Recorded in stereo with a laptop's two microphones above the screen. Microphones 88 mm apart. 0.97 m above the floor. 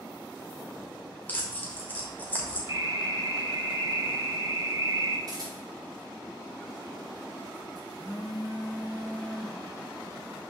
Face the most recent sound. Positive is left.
turn(degrees=-50)  # may be behind; listen again after turning